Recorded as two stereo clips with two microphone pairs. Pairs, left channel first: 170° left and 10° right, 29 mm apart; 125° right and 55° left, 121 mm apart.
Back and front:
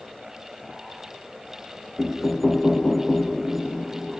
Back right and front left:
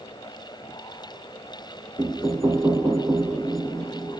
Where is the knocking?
85° left, 0.7 m.